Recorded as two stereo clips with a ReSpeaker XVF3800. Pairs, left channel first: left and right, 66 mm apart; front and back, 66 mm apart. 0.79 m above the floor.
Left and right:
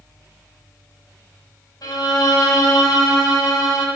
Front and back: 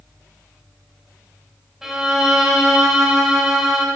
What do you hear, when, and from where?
1.8 s a violin: 95° left, 1.6 m